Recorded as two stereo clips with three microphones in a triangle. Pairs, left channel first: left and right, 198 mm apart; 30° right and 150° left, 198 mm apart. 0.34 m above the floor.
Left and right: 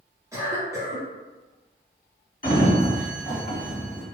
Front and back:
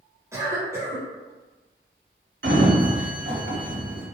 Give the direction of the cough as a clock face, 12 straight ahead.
5 o'clock.